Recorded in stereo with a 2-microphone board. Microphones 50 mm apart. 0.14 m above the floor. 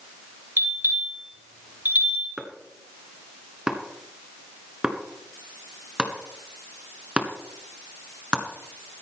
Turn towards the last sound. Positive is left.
turn(degrees=-20)  # may be behind; listen again after turning